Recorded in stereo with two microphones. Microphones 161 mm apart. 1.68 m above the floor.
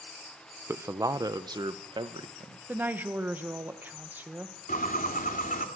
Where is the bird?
60° left (ahead or behind), 2.5 m.